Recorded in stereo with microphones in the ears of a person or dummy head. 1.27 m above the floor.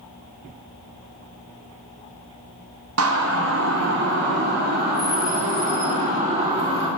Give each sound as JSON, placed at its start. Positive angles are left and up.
{"t": 3.0, "sound": "a siren", "side_deg": -75, "distance_m": 3.0}